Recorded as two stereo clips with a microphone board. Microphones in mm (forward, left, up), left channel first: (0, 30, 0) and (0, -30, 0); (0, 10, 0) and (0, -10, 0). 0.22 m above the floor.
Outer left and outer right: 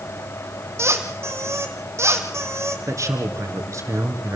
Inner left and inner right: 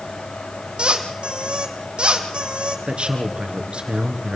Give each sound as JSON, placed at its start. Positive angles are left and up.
{"t": 0.8, "sound": "a squeak", "side_deg": -55, "distance_m": 2.5}
{"t": 2.9, "sound": "a man speaking", "side_deg": -65, "distance_m": 3.0}